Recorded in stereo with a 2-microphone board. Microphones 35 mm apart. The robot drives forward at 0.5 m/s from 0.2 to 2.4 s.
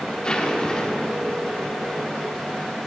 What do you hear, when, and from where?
0.2 s a zipper: 25° left (ahead or behind), 1.4 m; by 1.3 s 20° left (ahead or behind), 1.7 m